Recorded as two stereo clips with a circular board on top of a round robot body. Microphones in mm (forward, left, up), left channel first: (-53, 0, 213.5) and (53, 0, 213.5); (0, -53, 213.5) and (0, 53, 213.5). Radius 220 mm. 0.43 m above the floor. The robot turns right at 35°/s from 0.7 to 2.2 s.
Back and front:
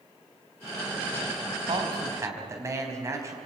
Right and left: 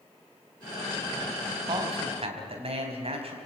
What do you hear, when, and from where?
1.7 s a man speaking: 45° left, 4.5 m; by 3.4 s 60° left, 4.5 m